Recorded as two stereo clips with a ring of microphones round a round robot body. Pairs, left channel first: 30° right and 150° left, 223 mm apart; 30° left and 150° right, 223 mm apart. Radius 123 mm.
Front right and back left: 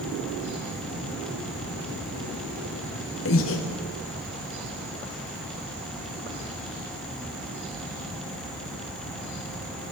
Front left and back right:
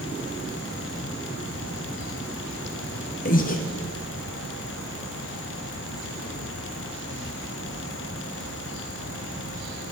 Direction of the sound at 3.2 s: 20° right.